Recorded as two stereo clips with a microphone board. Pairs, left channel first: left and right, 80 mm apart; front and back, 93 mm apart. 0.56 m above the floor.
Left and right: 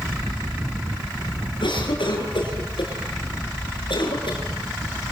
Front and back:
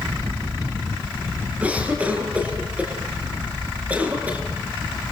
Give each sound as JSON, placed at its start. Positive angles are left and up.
{"t": 1.6, "sound": "a cough", "azimuth_deg": 105, "distance_m": 8.0}